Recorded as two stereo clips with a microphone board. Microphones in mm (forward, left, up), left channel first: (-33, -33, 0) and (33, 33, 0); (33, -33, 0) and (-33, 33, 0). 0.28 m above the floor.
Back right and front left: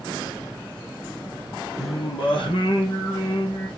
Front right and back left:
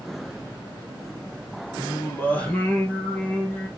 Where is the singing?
120° right, 4.5 m.